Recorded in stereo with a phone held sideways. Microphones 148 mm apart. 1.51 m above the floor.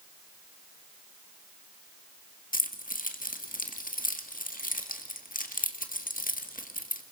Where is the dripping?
I don't hear dripping.